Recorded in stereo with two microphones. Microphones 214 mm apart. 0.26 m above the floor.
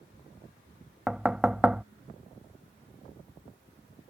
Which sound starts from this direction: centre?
Knocking, at 1.1 s.